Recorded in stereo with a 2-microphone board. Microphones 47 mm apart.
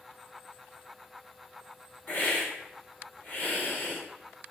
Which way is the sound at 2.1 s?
40° left (ahead or behind).